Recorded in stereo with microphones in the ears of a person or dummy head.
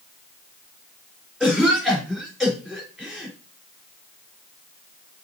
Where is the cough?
5° right (ahead or behind), 4 m.